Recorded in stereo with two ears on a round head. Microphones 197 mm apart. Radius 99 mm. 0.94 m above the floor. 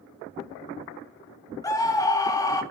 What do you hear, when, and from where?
1.6 s a scream: 15° left (ahead or behind), 2.0 m